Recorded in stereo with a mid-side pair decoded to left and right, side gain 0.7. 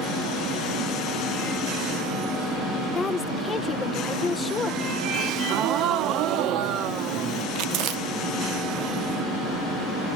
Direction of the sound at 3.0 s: 25° left.